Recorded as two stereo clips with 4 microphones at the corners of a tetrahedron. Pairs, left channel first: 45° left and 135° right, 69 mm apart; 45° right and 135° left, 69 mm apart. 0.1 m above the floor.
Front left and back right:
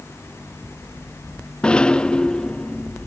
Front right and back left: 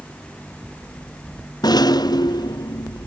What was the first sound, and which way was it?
A rattle, 30° right.